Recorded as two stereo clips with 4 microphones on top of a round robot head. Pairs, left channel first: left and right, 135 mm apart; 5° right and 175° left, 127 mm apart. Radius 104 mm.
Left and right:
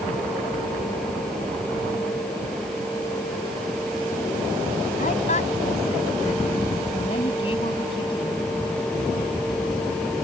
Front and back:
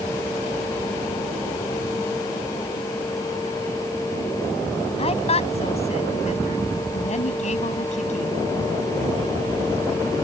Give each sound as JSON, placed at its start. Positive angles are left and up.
{"t": 5.0, "sound": "a woman speaking", "azimuth_deg": 35}